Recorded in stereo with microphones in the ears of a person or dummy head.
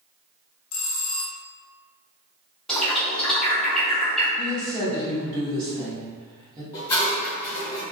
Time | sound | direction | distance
0.7 | a bell | 75° left (ahead or behind) | 0.5 m
2.7 | a bird | centre (ahead or behind) | 0.7 m
4.4 | a woman speaking | 30° right (ahead or behind) | 1.5 m
6.7 | dishes clattering | 20° left (ahead or behind) | 1.6 m